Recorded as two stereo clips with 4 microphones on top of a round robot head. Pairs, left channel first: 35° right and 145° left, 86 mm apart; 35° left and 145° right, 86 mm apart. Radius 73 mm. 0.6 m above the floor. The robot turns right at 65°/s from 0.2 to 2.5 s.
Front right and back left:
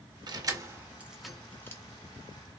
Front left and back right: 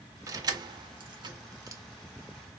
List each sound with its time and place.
0.3 s keys jangling: 170° left, 0.8 m; by 1.8 s 90° right, 0.8 m